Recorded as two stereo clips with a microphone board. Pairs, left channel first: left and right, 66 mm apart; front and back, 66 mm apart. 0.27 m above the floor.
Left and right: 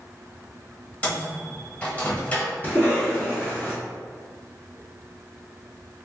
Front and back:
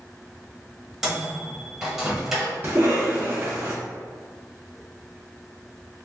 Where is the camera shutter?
No camera shutter in this recording.